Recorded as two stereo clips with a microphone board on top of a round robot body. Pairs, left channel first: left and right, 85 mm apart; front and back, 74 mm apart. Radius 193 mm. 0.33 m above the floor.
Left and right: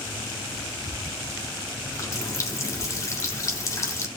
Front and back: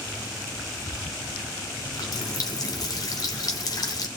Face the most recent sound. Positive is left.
turn(degrees=35)